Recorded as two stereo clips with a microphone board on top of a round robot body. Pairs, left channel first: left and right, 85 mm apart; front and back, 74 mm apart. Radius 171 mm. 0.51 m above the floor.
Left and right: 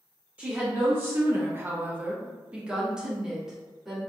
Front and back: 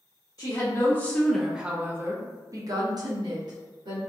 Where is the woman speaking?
30° right, 0.9 m; by 4.0 s 175° right, 1.6 m.